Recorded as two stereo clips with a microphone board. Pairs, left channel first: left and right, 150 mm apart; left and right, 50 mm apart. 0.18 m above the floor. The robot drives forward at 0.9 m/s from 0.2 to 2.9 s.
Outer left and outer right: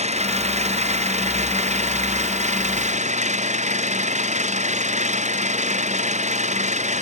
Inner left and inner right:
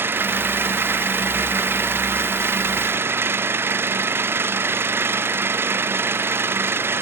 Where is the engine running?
50° right (ahead or behind).